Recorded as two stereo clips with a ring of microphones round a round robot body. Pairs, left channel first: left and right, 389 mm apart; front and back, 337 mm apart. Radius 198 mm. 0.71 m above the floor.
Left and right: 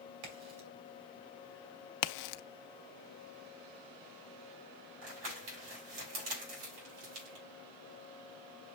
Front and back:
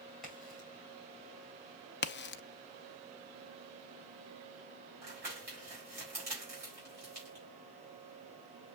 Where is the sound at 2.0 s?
60° left, 0.6 m.